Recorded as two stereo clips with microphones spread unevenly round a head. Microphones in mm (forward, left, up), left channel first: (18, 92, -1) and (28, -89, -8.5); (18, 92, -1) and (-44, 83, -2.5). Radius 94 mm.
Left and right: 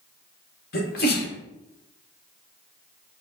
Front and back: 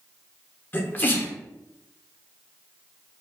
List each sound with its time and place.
0.7 s a sneeze: 65° left, 1.3 m